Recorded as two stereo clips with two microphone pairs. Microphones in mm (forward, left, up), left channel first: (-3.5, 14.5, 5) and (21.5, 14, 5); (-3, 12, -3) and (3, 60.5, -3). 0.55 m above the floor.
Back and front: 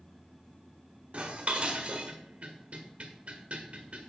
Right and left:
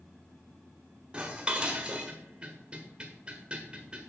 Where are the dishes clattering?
20° left, 1.4 m.